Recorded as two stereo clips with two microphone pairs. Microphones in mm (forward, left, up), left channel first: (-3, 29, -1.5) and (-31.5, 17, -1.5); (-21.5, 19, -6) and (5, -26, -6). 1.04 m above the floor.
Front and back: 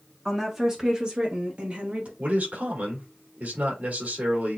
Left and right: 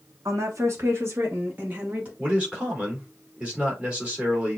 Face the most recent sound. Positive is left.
turn(degrees=-130)